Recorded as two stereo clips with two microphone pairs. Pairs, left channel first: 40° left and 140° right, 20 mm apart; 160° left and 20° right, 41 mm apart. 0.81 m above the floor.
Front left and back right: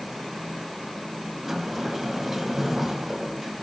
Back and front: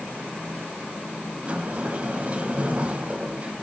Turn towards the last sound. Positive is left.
turn(degrees=-75)